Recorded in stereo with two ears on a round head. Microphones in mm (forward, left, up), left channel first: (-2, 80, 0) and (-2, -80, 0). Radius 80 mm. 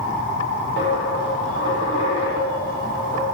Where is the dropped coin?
70° left (ahead or behind), 9.5 m.